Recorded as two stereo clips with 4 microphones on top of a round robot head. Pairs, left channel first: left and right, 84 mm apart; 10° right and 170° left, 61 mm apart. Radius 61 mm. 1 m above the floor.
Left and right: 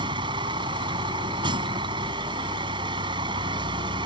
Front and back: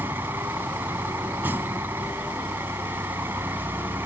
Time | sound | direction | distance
0.0 | a vehicle | 120° right | ?